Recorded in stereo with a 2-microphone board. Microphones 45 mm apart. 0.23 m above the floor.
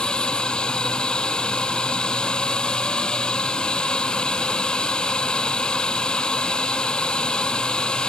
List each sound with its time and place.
0.0 s a drone: 20° left (ahead or behind)